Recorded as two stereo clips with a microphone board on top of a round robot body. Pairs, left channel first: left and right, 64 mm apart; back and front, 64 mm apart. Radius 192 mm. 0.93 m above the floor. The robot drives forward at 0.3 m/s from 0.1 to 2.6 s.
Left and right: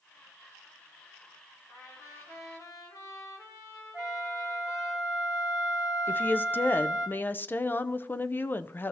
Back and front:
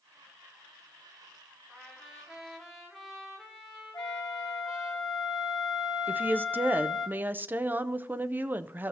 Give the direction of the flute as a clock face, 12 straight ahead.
6 o'clock.